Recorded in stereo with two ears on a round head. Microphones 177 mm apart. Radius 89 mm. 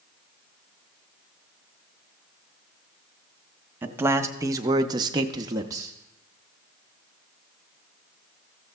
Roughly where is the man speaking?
Centre.